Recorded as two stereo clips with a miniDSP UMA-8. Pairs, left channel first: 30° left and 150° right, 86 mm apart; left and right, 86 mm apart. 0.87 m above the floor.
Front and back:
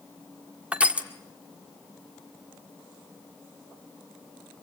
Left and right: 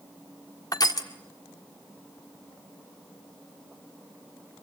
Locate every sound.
0.7 s crushing: 135° left, 1.7 m